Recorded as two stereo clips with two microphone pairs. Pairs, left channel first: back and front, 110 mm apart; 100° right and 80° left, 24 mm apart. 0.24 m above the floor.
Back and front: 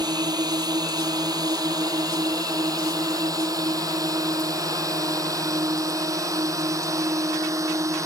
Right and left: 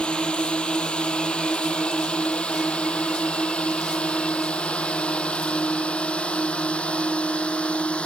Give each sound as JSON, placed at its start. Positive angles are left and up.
{"t": 0.0, "sound": "a drone", "azimuth_deg": -50}